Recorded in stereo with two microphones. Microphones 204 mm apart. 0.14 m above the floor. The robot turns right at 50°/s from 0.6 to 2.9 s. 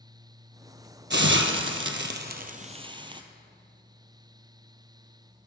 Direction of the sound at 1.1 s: 65° right (ahead or behind).